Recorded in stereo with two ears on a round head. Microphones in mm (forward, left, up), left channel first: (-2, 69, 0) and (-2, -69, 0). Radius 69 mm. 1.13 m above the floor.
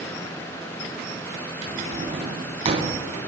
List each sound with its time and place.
1.6 s a drawer: 40° right (ahead or behind), 3 m